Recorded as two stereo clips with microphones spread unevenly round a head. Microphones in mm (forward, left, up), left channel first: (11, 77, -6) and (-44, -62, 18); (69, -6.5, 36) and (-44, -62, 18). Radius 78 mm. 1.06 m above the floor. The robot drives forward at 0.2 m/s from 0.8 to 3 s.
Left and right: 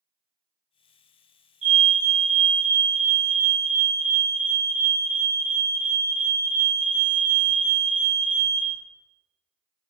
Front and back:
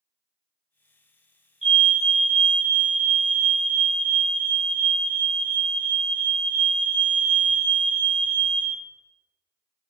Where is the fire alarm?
80° right, 1.6 m; by 8.7 s 95° right, 1.6 m.